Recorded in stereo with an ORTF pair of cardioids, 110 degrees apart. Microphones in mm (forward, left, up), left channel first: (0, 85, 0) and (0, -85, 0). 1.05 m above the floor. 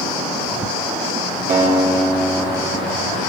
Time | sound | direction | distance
1.5 | a guitar | 55° right | 3 m